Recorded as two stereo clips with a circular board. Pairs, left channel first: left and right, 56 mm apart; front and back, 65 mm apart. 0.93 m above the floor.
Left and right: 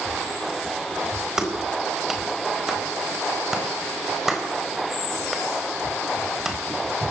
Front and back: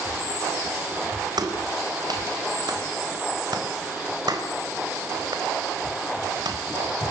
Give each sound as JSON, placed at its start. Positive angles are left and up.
{"t": 1.4, "sound": "a clap", "azimuth_deg": -170, "distance_m": 4.0}